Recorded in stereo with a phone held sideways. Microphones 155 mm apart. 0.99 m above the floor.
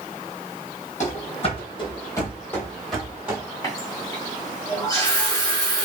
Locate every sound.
1.0 s running footsteps: 50° left (ahead or behind), 1.7 m; by 3.4 s 10° right (ahead or behind), 1.8 m
3.6 s a running tap: 20° left (ahead or behind), 1.7 m